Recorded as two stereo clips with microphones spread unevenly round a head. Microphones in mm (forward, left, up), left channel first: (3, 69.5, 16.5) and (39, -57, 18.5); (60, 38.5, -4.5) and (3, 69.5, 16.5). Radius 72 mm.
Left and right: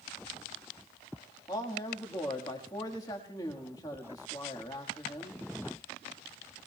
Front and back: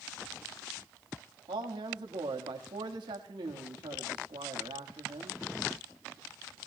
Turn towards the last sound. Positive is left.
turn(degrees=170)